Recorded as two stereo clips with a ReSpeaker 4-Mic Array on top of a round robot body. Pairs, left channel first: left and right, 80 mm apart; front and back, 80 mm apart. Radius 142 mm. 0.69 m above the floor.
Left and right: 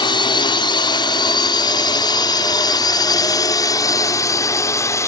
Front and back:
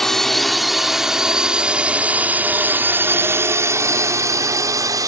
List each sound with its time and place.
0.0 s a drone: 85° left; by 5.1 s 140° left